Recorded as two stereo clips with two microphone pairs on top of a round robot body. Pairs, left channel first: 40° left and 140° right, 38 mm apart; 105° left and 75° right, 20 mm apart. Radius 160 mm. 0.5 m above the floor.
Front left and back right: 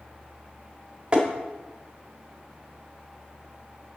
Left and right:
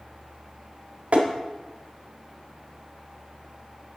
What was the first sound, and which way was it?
Tapping, 70° right.